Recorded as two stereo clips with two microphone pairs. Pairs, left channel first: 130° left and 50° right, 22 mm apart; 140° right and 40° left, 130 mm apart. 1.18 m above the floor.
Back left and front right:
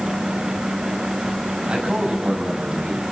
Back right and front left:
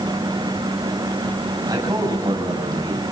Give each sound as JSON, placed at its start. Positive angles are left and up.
{"t": 1.7, "sound": "a man speaking", "azimuth_deg": -20, "distance_m": 6.5}